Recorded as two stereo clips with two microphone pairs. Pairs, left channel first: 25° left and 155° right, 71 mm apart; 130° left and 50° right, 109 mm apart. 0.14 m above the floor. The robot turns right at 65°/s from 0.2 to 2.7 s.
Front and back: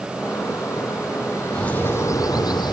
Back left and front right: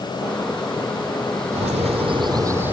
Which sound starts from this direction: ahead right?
A bird, at 1.5 s.